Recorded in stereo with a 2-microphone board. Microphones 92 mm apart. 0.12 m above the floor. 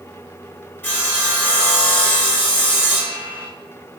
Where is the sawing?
20° left (ahead or behind), 1.5 m.